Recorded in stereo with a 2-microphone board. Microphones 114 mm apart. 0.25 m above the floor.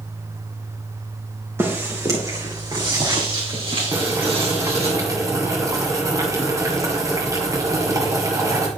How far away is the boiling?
About 2 m.